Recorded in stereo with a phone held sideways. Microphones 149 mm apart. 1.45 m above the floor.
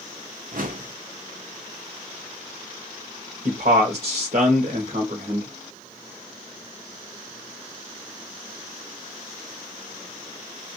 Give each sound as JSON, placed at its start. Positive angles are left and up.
{"t": 0.5, "sound": "a whoosh", "side_deg": -65, "distance_m": 0.7}
{"t": 3.5, "sound": "a man speaking", "side_deg": -75, "distance_m": 1.0}